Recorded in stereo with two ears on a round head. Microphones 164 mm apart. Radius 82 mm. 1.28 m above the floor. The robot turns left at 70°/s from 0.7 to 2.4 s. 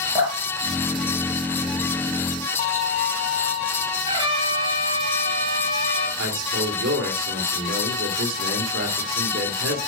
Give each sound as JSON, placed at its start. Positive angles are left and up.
{"t": 0.1, "sound": "dripping", "side_deg": -20, "distance_m": 3.0}
{"t": 2.6, "sound": "a violin", "side_deg": 40, "distance_m": 1.2}
{"t": 4.0, "sound": "a trumpet", "side_deg": -30, "distance_m": 4.0}
{"t": 6.2, "sound": "a man speaking", "side_deg": -75, "distance_m": 3.0}